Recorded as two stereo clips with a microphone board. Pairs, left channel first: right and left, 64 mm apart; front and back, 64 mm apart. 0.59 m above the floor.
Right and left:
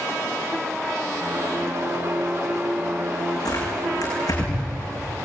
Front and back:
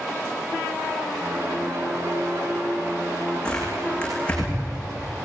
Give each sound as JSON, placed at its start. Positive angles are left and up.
{"t": 1.2, "sound": "a piano", "azimuth_deg": 135, "distance_m": 6.0}
{"t": 3.5, "sound": "tearing paper", "azimuth_deg": -75, "distance_m": 8.0}